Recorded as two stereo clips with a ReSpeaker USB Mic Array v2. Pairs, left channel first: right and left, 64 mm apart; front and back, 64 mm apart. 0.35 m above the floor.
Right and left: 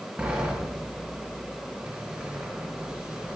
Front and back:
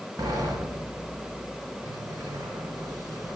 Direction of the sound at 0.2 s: 165° left.